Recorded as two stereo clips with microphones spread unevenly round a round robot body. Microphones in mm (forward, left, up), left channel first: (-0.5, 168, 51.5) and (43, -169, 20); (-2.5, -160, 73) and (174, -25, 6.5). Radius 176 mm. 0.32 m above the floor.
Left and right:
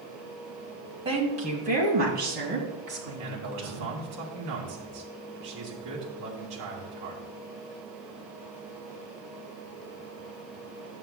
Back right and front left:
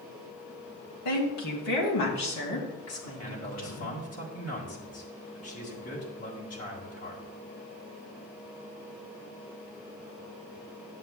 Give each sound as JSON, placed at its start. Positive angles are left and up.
{"t": 1.1, "sound": "a woman speaking", "azimuth_deg": -155, "distance_m": 2.0}
{"t": 3.2, "sound": "a man speaking", "azimuth_deg": -120, "distance_m": 2.0}